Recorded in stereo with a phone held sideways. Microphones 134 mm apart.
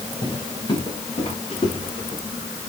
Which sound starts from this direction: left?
Footsteps, at 0.2 s.